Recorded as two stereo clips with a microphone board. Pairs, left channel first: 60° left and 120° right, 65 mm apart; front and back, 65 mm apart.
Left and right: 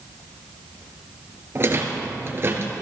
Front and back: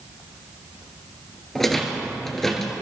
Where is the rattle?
85° right, 2 m.